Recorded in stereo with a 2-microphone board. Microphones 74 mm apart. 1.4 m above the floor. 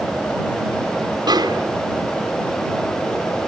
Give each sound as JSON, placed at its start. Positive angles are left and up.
{"t": 1.3, "sound": "a snare drum", "side_deg": -75}